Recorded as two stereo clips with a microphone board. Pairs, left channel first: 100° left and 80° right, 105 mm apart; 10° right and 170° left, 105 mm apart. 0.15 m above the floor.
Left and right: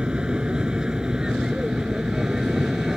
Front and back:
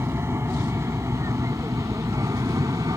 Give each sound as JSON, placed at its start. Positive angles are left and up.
{"t": 0.0, "sound": "an aircraft", "azimuth_deg": -155}